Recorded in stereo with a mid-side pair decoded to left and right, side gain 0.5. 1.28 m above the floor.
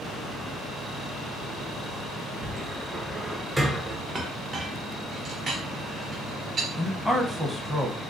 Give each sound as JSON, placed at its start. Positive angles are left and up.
{"t": 2.4, "sound": "a cupboard door", "azimuth_deg": -10, "distance_m": 0.5}
{"t": 4.2, "sound": "a clink", "azimuth_deg": -40, "distance_m": 0.8}
{"t": 6.8, "sound": "a man speaking", "azimuth_deg": 5, "distance_m": 0.7}